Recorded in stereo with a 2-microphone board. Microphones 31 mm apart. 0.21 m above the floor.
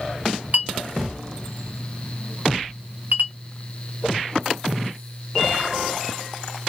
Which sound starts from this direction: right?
A clink, at 0.5 s.